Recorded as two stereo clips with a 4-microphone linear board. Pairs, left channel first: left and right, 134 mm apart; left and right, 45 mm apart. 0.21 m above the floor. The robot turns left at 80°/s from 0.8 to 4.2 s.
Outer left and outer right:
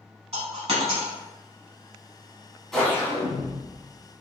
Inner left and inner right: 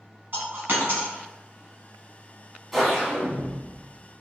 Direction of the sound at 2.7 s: 175° left.